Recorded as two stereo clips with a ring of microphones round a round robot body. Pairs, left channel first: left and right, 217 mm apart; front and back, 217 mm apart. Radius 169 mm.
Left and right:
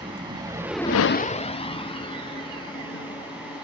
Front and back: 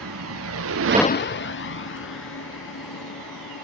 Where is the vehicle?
165° right; by 3.6 s 20° left.